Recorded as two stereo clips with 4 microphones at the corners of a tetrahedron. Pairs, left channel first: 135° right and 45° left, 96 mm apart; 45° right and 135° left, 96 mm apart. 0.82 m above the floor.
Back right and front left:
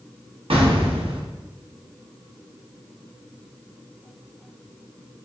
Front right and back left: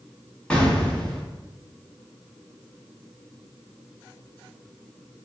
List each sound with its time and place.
0.5 s an explosion: 35° left, 0.6 m